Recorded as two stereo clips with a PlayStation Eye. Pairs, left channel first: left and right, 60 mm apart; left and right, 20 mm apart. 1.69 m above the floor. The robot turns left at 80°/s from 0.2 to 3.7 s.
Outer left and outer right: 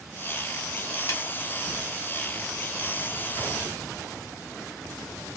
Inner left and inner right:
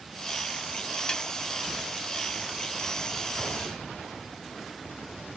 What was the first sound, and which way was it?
A snare drum, 50° left (ahead or behind).